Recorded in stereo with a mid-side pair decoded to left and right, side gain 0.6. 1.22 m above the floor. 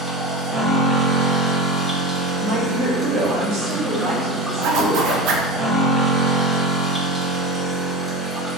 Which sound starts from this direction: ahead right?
A woman speaking, at 2.4 s.